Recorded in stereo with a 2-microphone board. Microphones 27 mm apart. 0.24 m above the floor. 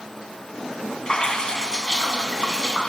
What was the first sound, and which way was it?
Dripping, 30° left (ahead or behind).